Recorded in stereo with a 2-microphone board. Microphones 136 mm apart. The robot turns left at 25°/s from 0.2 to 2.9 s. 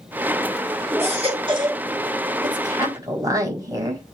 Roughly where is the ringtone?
No ringtone in this recording.